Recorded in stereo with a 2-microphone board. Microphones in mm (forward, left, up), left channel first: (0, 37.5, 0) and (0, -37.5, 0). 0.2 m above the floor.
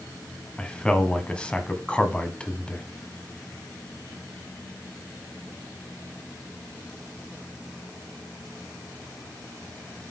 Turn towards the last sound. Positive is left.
turn(degrees=10)  # may be behind; listen again after turning